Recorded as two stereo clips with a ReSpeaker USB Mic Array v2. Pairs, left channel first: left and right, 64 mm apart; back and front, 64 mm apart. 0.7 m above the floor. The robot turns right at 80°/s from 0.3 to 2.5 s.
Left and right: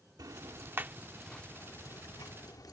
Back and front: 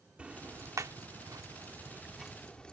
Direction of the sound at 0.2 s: 70° right.